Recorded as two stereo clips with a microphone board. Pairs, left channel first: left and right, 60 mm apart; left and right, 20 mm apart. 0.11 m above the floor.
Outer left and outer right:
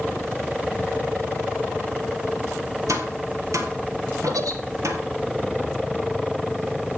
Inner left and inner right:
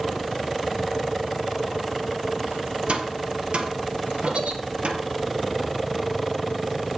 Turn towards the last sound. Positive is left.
turn(degrees=-75)  # may be behind; listen again after turning